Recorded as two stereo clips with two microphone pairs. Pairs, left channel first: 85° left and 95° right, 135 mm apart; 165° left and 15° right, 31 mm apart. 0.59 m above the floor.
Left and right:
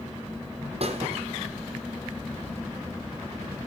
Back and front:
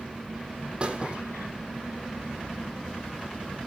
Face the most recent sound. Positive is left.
turn(degrees=-70)